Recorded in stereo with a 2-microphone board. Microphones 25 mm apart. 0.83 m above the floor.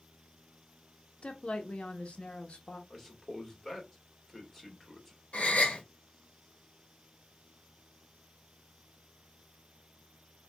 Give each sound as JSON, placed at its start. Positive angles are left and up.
{"t": 1.2, "sound": "a woman speaking", "side_deg": 50, "distance_m": 1.0}
{"t": 2.9, "sound": "a man speaking", "side_deg": 5, "distance_m": 1.9}
{"t": 5.3, "sound": "a gasp", "side_deg": 70, "distance_m": 1.3}